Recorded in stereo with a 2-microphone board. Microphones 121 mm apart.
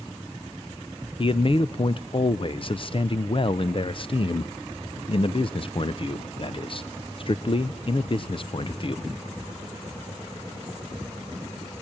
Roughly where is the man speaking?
Left.